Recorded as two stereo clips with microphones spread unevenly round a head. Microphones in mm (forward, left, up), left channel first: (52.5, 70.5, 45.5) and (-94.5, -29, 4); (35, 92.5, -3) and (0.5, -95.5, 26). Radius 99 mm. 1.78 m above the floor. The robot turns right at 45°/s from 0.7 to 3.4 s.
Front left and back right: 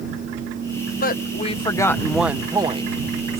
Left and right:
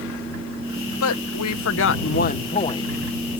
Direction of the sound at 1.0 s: 70° left.